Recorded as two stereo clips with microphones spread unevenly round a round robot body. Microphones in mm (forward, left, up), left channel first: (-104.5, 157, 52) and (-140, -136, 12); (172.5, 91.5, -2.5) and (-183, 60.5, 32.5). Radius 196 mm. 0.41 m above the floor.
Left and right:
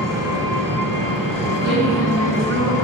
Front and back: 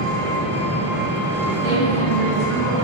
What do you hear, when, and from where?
0.0 s an engine running: 110° right, 3 m
1.6 s a woman speaking: 50° right, 2.5 m